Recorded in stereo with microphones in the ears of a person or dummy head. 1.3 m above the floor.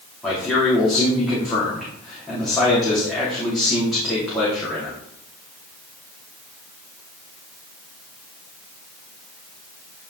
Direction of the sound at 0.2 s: Centre (ahead or behind).